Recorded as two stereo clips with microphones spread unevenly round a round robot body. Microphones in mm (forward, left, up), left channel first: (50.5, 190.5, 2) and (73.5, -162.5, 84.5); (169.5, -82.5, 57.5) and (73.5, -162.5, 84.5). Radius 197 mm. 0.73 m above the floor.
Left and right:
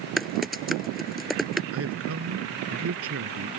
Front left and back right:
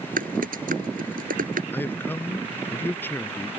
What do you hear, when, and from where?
0.2 s typing on a keyboard: 175° right
1.7 s a man speaking: 35° right